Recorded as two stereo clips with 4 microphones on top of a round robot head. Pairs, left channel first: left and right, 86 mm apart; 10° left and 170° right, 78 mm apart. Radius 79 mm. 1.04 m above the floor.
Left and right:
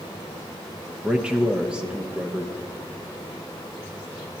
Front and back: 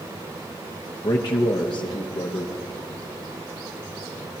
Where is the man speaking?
10° right, 1.1 m.